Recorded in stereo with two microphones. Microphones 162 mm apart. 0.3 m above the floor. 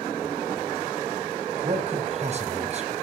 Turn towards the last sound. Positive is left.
turn(degrees=-45)  # may be behind; listen again after turning